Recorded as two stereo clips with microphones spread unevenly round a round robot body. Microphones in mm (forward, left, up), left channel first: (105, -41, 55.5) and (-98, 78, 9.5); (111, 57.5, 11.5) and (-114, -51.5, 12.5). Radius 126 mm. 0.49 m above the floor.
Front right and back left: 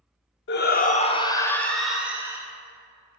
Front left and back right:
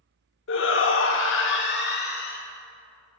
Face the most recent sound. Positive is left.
turn(degrees=80)